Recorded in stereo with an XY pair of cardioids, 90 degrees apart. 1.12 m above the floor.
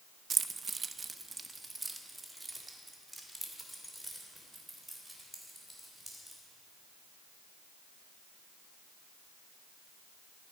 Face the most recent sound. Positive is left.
turn(degrees=-5)